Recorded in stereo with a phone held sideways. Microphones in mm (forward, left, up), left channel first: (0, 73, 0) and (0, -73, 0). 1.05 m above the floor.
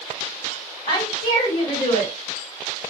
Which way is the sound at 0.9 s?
75° left (ahead or behind).